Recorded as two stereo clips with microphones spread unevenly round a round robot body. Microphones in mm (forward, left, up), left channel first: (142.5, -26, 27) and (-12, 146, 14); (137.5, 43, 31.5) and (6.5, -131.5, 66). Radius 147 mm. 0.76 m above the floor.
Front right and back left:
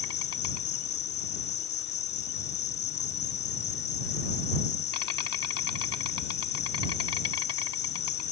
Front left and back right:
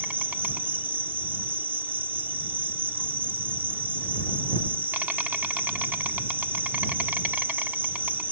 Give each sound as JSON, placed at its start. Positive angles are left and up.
{"t": 0.0, "sound": "an insect", "azimuth_deg": -40}